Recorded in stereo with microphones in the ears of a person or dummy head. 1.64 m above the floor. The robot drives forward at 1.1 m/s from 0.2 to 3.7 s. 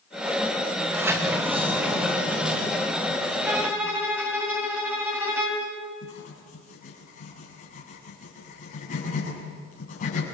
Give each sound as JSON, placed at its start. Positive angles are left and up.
{"t": 0.8, "sound": "a sliding door", "side_deg": -15, "distance_m": 1.8}
{"t": 3.5, "sound": "a violin", "side_deg": -10, "distance_m": 3.5}
{"t": 6.0, "sound": "writing", "side_deg": 40, "distance_m": 7.0}